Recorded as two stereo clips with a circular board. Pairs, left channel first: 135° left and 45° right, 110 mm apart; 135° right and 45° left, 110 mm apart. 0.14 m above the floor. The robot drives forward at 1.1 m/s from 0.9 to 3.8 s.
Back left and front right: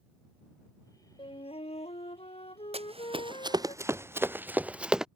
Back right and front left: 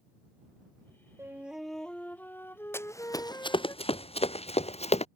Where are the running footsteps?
65° right; by 5.1 s 130° right.